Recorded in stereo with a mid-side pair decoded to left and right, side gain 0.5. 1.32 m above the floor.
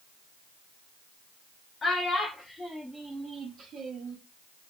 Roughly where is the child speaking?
Ahead left.